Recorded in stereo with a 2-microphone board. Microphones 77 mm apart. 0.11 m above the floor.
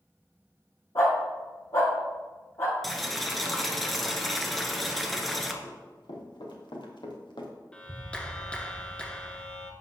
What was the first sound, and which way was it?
A dog barking, 50° left (ahead or behind).